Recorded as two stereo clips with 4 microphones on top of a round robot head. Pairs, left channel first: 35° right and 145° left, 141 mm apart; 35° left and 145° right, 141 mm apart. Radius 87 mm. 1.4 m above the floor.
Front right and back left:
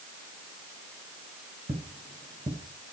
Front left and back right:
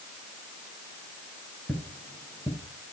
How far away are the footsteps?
About 1.5 m.